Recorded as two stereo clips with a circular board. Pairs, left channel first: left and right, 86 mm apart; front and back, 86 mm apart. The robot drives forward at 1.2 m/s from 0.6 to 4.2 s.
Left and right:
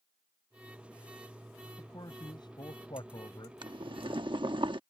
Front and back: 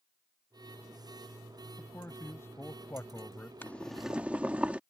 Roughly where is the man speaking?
Ahead left.